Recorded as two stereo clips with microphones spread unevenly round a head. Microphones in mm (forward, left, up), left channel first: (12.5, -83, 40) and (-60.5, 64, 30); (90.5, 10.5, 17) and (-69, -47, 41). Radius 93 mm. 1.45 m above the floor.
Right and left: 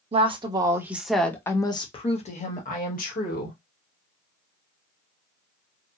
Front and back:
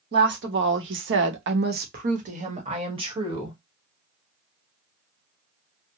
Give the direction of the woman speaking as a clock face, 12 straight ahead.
6 o'clock.